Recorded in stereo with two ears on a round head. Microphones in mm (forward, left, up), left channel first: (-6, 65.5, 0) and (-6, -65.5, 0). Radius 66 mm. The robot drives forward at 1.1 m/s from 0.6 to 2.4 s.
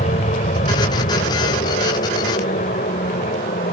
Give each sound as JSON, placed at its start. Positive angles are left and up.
{"t": 0.0, "sound": "an aircraft", "side_deg": 50}